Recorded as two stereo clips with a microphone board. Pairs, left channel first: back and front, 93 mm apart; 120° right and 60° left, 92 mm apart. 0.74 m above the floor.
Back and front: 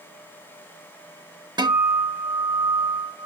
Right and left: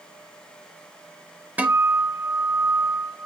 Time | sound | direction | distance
1.6 | a guitar | 10° right | 0.6 m